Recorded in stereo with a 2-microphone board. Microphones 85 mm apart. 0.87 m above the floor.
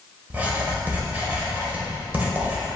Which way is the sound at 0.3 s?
20° right (ahead or behind).